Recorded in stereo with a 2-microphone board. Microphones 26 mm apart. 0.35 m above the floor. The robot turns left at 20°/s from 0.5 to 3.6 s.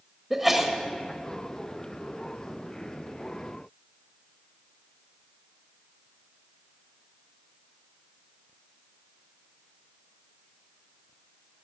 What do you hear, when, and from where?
0.3 s a sneeze: 10° right (ahead or behind), 1.2 m; by 0.7 s 15° right (ahead or behind), 1.2 m